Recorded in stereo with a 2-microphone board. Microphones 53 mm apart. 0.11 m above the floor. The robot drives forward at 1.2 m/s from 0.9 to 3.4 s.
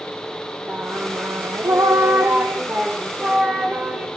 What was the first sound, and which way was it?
Singing, 45° right (ahead or behind).